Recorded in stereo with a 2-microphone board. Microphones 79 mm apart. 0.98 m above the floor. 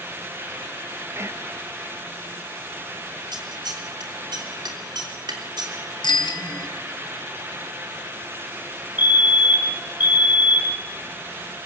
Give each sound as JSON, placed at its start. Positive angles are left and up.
{"t": 1.1, "sound": "whispering", "side_deg": -35, "distance_m": 1.1}
{"t": 3.3, "sound": "scissors", "side_deg": -75, "distance_m": 3.5}
{"t": 6.0, "sound": "a bicycle bell", "side_deg": 80, "distance_m": 4.5}
{"t": 9.0, "sound": "a fire alarm", "side_deg": -25, "distance_m": 1.7}